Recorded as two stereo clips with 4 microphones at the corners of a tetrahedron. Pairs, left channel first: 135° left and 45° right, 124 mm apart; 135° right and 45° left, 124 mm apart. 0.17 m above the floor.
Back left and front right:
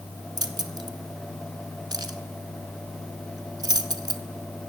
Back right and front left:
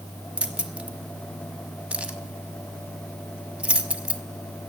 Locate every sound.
0.4 s keys jangling: 30° right, 0.9 m